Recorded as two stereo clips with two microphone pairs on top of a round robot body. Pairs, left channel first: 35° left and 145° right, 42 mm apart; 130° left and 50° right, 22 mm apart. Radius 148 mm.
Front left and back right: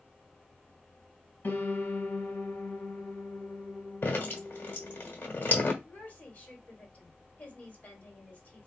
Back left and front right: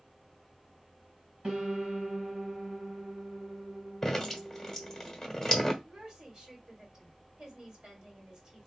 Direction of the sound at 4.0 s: 55° left.